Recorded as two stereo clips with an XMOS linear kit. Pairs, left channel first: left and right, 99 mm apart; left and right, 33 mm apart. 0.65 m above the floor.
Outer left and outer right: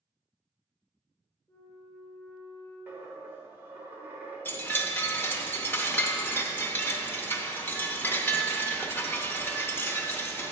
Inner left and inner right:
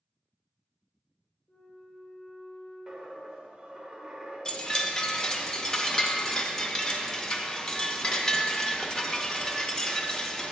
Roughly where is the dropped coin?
Centre.